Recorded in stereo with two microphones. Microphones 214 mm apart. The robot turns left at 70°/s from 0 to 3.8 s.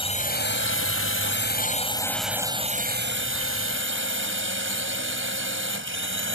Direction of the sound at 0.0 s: 155° left.